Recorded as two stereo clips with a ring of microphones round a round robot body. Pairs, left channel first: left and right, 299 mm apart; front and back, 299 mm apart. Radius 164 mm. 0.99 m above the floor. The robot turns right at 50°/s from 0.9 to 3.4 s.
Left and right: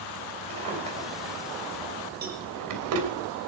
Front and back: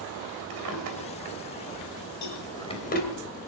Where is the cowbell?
30° right, 5 m; by 2.4 s 20° right, 5 m.